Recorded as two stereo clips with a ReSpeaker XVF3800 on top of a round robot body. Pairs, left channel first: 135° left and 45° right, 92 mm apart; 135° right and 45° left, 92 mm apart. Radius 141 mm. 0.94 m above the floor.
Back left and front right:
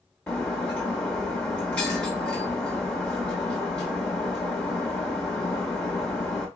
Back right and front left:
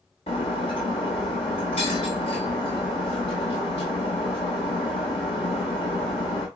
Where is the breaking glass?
150° right, 0.7 m.